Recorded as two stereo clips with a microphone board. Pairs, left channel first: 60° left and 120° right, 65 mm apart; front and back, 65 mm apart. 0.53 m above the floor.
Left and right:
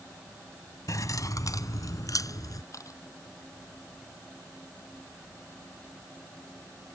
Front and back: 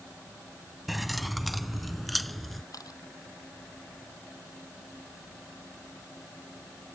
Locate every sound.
0.9 s keys jangling: 90° left
2.7 s a camera shutter: 25° left